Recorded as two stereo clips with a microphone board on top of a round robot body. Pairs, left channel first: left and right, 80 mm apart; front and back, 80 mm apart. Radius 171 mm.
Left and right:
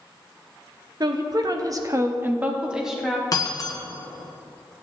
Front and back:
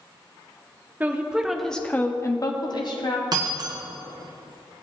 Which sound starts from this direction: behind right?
A woman speaking, at 1.0 s.